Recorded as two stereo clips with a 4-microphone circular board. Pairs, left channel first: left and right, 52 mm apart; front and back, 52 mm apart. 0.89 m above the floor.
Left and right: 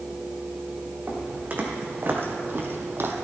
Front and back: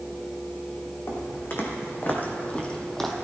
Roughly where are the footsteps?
Ahead right.